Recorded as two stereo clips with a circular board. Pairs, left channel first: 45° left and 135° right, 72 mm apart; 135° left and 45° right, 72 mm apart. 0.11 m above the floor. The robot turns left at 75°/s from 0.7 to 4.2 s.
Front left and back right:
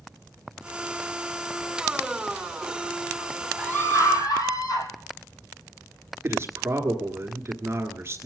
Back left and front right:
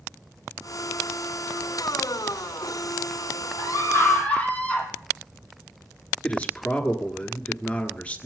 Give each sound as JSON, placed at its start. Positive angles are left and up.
{"t": 3.6, "sound": "a scream", "azimuth_deg": 115, "distance_m": 3.0}
{"t": 6.2, "sound": "a man speaking", "azimuth_deg": -165, "distance_m": 1.7}